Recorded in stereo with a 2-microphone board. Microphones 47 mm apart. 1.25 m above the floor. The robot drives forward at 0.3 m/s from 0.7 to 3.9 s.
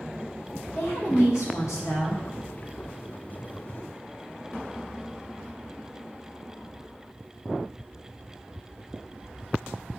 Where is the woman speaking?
70° left (ahead or behind), 1.4 m; by 2.2 s 90° left, 1.3 m.